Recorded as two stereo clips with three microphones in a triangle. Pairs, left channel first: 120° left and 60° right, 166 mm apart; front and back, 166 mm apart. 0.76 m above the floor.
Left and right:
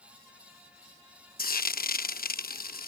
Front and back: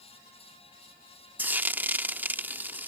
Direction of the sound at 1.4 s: 100° left.